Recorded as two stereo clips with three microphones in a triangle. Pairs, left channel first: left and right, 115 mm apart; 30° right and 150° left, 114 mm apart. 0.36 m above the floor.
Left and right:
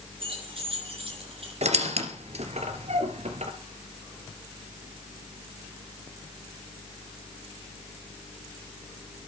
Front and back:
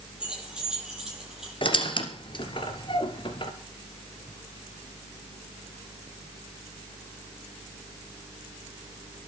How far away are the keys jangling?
About 9 m.